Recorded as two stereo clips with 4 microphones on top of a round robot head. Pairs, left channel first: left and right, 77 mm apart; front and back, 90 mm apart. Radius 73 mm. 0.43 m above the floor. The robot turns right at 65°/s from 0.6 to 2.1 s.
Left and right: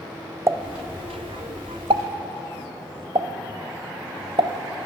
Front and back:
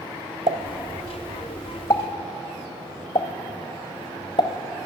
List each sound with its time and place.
0.5 s a pop: 145° right, 0.7 m; by 4.9 s 50° right, 0.7 m